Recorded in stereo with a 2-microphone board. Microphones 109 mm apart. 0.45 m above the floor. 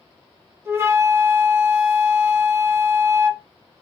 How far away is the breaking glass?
I don't hear breaking glass.